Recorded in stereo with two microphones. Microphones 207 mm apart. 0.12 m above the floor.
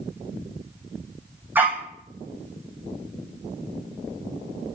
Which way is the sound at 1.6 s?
10° right (ahead or behind).